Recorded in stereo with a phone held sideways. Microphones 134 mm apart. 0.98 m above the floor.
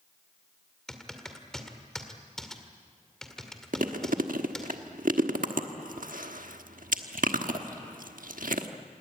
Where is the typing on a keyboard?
5° left (ahead or behind), 2 m.